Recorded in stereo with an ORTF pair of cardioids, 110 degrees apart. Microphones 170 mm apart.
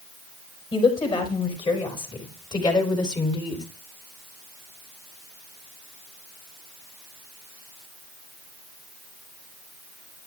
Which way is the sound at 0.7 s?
30° left.